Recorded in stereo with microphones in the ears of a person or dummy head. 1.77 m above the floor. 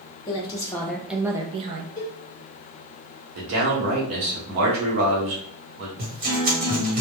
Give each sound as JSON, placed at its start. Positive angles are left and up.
{"t": 0.3, "sound": "a woman speaking", "side_deg": 25, "distance_m": 0.8}
{"t": 2.0, "sound": "a cowbell", "side_deg": 15, "distance_m": 0.8}
{"t": 3.4, "sound": "a man speaking", "side_deg": -65, "distance_m": 1.0}
{"t": 6.0, "sound": "a guitar", "side_deg": -45, "distance_m": 1.3}